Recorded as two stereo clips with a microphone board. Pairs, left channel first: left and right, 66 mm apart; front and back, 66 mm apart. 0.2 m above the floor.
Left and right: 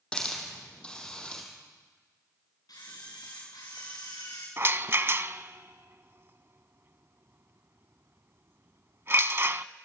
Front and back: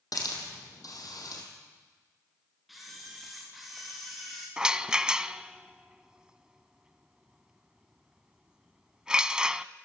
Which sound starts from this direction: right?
A rattle, at 4.6 s.